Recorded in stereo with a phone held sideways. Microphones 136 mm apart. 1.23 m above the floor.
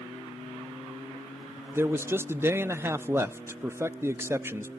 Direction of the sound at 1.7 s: 15° right (ahead or behind).